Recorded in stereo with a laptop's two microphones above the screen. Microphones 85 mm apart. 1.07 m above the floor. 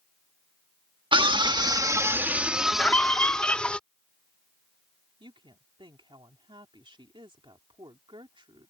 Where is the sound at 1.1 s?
80° right; by 3.8 s 10° left (ahead or behind).